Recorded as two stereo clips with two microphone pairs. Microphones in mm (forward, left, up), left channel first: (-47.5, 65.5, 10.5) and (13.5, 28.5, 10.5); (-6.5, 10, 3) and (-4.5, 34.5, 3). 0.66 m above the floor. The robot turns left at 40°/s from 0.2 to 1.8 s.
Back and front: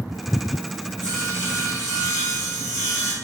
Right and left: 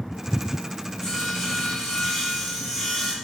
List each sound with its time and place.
1.0 s sawing: 50° right, 1.6 m; by 3.1 s 80° right, 1.6 m